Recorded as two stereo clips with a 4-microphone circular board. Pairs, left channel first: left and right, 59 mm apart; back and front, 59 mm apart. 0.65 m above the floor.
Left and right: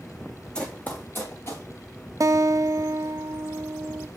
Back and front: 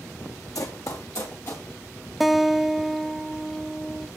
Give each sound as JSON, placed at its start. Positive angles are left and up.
{"t": 0.6, "sound": "running footsteps", "azimuth_deg": 165, "distance_m": 1.7}
{"t": 2.2, "sound": "a guitar", "azimuth_deg": -85, "distance_m": 0.5}